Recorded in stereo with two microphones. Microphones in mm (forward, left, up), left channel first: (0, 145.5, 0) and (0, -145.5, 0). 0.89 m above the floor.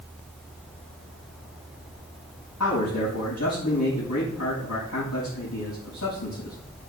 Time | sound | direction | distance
2.6 | a man speaking | 70° left (ahead or behind) | 5 m